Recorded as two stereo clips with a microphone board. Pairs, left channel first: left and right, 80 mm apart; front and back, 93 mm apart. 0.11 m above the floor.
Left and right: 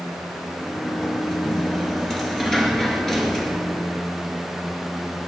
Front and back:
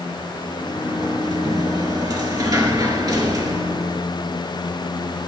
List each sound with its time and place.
0.6 s a sliding door: 175° left, 2.5 m